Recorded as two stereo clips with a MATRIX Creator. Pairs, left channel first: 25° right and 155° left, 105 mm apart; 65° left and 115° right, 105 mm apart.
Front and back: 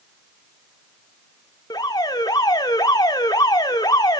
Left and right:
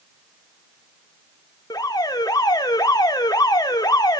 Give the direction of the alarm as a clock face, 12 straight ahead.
11 o'clock.